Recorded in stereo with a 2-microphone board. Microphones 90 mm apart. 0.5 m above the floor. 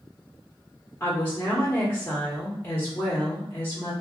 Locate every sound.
1.0 s a woman speaking: 20° left (ahead or behind), 1.0 m